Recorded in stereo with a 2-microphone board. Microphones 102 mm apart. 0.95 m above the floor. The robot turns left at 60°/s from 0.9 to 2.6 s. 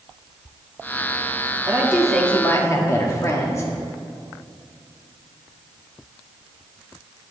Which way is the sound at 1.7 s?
155° right.